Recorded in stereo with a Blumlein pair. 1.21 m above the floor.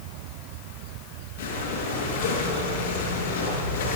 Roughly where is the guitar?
No guitar in this recording.